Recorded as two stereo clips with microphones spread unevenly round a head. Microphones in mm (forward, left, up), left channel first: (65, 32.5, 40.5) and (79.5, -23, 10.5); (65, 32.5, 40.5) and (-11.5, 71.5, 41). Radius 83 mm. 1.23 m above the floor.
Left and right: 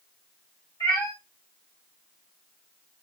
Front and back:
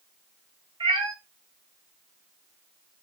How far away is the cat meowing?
About 3.5 m.